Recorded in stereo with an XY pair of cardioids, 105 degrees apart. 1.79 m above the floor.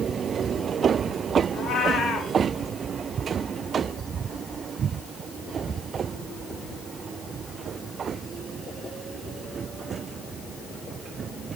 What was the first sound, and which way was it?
A cat meowing, 50° left.